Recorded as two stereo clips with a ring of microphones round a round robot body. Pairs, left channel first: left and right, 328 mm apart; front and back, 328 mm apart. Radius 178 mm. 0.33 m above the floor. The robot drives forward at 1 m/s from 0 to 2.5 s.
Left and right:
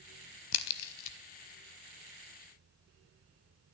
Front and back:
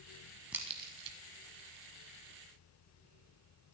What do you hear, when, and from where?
0.5 s a crack: 95° left, 0.8 m; by 1.2 s 130° left, 1.1 m